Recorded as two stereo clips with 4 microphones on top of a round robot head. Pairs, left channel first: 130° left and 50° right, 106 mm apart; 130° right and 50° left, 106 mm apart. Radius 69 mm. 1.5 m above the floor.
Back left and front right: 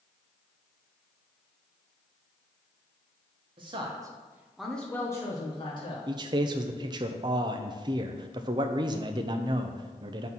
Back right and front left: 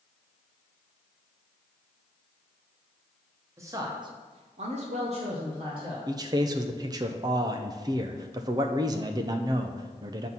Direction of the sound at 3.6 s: 10° right.